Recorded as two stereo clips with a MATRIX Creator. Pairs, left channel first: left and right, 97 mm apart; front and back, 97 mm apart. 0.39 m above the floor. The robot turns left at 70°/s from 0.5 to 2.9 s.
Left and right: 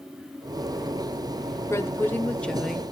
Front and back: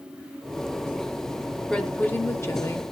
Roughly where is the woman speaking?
Left.